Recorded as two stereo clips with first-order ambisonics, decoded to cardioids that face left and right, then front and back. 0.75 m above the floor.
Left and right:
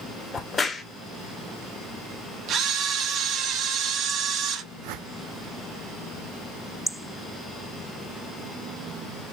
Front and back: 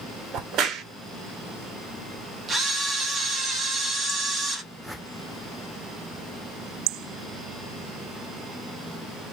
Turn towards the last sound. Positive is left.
turn(degrees=-90)